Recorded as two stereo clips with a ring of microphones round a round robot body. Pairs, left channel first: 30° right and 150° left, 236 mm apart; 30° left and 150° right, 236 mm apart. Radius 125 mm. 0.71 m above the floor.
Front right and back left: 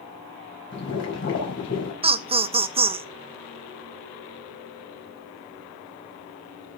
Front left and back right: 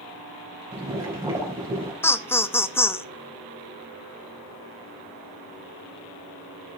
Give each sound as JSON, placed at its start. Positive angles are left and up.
{"t": 0.7, "sound": "boiling", "azimuth_deg": -70, "distance_m": 4.5}
{"t": 2.0, "sound": "laughter", "azimuth_deg": 105, "distance_m": 0.6}